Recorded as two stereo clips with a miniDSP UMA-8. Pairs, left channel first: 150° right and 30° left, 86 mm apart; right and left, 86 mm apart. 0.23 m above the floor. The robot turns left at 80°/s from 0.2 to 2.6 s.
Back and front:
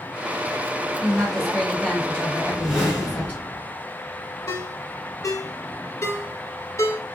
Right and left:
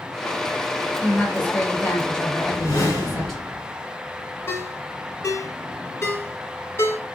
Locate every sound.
1.0 s a woman speaking: 45° right, 1.1 m; by 3.4 s 170° right, 1.1 m
2.4 s a whoosh: 25° right, 2.5 m; by 3.6 s 45° right, 2.5 m
4.5 s a ringtone: 125° right, 1.0 m